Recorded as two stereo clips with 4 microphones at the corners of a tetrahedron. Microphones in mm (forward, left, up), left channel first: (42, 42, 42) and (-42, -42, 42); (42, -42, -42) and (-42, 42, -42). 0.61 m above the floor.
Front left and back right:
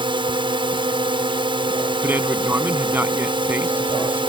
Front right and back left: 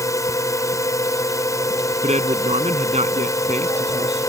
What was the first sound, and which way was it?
A drone, 105° right.